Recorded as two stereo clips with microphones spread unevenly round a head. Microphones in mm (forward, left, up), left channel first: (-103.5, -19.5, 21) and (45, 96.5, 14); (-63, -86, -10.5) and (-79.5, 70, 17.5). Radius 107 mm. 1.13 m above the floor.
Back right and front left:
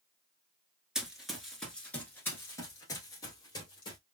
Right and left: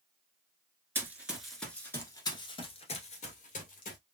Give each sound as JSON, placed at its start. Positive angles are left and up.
{"t": 0.9, "sound": "running footsteps", "azimuth_deg": 125, "distance_m": 1.2}